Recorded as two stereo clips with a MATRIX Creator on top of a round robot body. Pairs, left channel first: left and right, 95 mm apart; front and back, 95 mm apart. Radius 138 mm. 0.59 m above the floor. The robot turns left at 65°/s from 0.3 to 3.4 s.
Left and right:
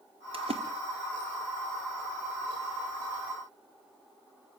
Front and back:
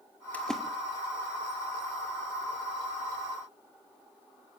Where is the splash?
70° right, 1.8 m; by 0.6 s 90° right, 1.8 m.